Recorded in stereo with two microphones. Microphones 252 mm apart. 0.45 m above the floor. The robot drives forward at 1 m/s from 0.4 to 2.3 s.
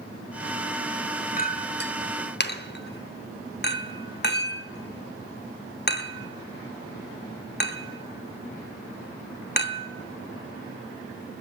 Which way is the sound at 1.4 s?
35° left (ahead or behind).